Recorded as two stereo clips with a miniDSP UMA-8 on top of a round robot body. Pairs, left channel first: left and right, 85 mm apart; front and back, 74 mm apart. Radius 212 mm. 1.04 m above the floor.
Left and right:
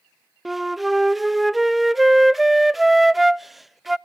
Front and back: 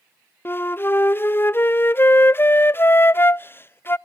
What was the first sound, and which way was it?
A flute, straight ahead.